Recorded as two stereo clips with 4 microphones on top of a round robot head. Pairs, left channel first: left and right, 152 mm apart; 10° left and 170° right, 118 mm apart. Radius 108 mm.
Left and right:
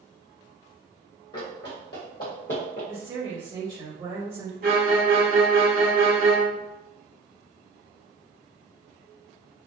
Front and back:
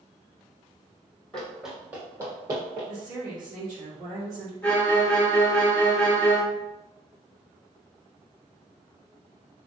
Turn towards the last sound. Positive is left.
turn(degrees=-65)